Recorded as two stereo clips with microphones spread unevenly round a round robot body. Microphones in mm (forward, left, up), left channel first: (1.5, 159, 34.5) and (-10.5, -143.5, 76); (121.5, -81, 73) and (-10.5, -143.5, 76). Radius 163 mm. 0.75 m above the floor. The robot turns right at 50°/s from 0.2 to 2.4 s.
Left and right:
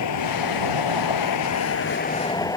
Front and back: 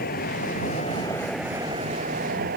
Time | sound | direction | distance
0.0 | a vehicle | 55° left | ?